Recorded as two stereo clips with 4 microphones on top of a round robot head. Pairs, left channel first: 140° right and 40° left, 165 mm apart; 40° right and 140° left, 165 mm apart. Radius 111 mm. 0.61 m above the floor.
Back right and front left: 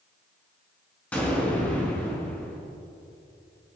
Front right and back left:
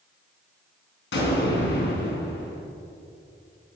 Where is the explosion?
55° right, 4 m.